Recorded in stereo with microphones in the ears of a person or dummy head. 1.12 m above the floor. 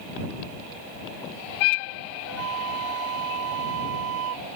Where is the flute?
75° right (ahead or behind).